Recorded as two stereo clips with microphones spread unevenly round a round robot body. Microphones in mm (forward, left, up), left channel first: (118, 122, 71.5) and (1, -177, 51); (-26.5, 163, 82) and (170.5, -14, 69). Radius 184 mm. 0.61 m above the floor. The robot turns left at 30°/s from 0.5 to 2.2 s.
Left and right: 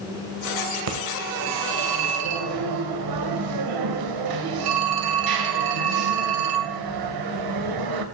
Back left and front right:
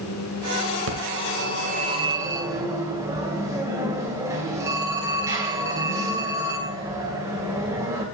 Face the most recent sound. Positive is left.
turn(degrees=-120)